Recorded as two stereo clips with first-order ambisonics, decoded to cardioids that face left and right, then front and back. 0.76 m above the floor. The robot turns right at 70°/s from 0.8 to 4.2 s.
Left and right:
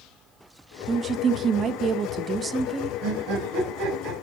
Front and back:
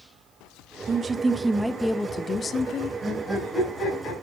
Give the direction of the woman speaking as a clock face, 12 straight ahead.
5 o'clock.